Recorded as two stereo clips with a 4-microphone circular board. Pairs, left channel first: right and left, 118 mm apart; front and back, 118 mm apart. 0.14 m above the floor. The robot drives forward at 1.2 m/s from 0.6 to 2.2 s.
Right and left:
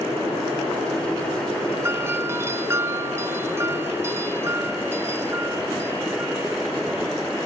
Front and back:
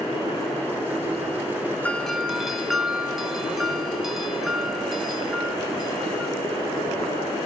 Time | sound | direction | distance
1.8 | a doorbell | 60° left | 1.8 m